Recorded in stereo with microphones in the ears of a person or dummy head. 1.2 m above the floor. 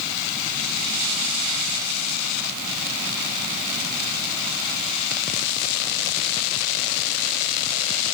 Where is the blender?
No blender in this recording.